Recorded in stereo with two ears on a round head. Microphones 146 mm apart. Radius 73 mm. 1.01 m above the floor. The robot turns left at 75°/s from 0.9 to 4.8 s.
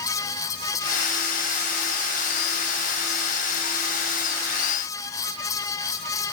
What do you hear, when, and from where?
Only background noise.